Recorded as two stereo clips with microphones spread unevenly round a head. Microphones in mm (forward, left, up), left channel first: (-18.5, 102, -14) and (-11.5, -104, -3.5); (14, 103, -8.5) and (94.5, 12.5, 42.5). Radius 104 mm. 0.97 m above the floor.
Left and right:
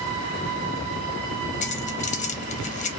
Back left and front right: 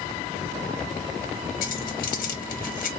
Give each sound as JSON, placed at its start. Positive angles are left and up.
{"t": 1.6, "sound": "keys jangling", "azimuth_deg": 150, "distance_m": 0.8}